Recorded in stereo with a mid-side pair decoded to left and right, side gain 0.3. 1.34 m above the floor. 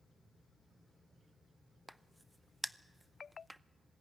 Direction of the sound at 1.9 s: 15° right.